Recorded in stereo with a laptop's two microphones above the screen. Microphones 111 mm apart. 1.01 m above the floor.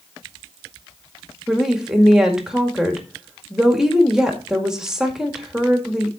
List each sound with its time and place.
1.5 s a woman speaking: 5° right (ahead or behind), 2.0 m